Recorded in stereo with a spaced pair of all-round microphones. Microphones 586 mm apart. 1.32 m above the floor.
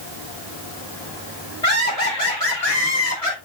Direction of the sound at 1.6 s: 85° left.